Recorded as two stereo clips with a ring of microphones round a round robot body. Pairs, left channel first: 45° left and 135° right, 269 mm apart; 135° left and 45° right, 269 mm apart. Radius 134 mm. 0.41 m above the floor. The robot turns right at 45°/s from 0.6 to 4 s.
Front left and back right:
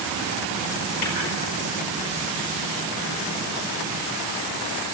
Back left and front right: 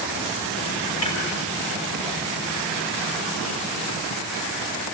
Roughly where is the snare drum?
Left.